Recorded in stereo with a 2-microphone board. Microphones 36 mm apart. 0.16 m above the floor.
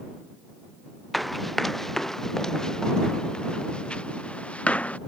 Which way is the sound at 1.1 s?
Centre (ahead or behind).